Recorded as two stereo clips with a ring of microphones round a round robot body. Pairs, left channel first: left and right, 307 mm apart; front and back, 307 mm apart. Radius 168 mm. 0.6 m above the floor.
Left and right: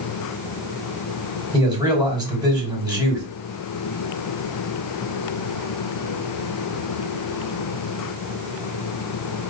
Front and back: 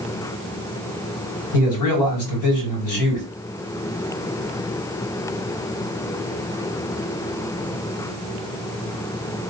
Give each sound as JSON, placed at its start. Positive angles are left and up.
{"t": 1.5, "sound": "a man speaking", "azimuth_deg": -15, "distance_m": 3.0}